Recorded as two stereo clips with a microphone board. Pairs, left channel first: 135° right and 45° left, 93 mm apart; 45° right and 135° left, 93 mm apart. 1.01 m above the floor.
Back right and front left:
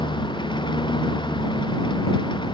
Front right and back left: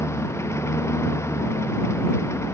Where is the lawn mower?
105° right.